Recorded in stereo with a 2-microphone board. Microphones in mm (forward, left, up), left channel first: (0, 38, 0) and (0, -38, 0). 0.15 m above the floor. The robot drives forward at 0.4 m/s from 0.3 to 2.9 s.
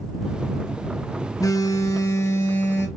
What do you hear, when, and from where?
1.4 s a phone buzzing: 50° left (ahead or behind), 0.5 m; by 2.9 s 30° left (ahead or behind), 0.9 m